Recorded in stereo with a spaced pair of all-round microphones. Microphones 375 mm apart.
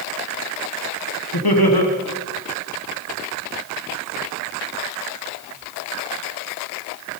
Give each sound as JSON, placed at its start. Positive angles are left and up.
{"t": 1.3, "sound": "laughter", "side_deg": 75, "distance_m": 1.5}